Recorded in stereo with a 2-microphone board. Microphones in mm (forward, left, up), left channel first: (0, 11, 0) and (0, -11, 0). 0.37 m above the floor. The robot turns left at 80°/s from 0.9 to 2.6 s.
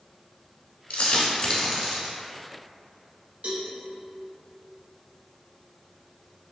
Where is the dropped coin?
75° left (ahead or behind), 0.9 m; by 2.1 s 25° right (ahead or behind), 0.9 m.